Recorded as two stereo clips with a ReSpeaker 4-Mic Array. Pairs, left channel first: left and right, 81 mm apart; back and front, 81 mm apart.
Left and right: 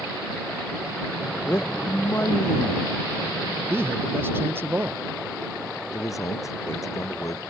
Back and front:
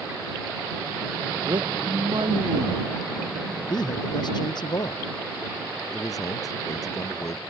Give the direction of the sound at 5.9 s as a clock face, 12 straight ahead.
7 o'clock.